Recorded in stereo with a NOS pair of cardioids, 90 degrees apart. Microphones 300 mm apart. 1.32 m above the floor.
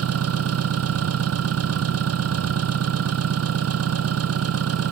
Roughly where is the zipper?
I don't hear a zipper.